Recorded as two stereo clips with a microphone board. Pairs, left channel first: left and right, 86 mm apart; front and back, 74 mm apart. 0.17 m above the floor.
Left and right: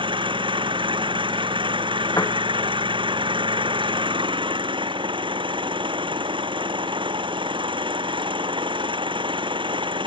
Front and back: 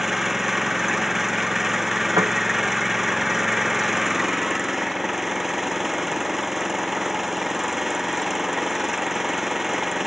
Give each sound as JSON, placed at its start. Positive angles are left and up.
{"t": 0.0, "sound": "an engine running", "azimuth_deg": -95}
{"t": 2.2, "sound": "a piano", "azimuth_deg": 145}